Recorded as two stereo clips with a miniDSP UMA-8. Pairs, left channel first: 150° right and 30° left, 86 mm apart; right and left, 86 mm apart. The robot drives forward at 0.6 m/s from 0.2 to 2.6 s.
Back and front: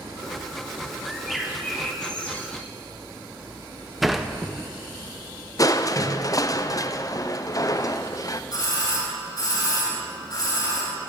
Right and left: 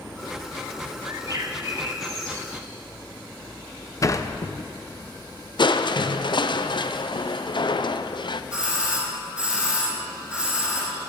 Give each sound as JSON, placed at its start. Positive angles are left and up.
{"t": 1.1, "sound": "a bird", "azimuth_deg": 115, "distance_m": 1.5}
{"t": 4.0, "sound": "a sliding door", "azimuth_deg": -60, "distance_m": 0.6}
{"t": 5.6, "sound": "crushing", "azimuth_deg": -105, "distance_m": 0.6}
{"t": 8.5, "sound": "a doorbell", "azimuth_deg": 170, "distance_m": 3.5}